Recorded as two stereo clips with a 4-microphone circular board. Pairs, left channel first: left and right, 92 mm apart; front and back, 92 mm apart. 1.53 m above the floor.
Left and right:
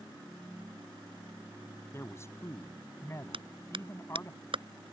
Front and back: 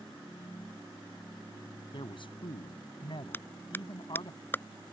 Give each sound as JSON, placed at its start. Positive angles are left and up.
{"t": 1.9, "sound": "a man speaking", "azimuth_deg": 30}
{"t": 3.3, "sound": "a clap", "azimuth_deg": -70}